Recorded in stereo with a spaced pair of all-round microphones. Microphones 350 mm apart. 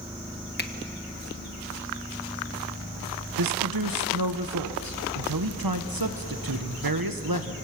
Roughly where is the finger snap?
Left.